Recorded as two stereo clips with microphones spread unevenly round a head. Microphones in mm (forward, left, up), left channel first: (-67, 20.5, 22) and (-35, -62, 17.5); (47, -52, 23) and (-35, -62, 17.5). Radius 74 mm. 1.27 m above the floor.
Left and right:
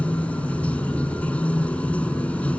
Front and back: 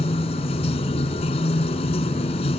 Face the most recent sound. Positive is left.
turn(degrees=30)